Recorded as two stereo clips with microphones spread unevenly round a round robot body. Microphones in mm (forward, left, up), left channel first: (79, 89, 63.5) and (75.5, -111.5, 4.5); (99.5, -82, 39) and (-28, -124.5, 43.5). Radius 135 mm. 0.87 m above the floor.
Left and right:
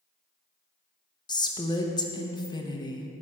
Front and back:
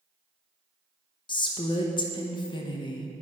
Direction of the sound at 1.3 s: 10° left.